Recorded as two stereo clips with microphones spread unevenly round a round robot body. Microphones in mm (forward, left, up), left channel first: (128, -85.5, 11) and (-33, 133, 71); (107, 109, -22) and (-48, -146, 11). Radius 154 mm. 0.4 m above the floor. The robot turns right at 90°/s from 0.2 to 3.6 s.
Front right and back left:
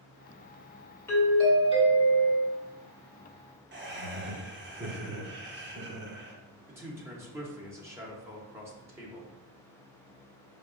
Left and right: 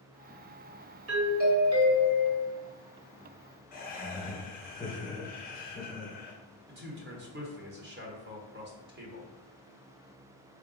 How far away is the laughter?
About 1.1 m.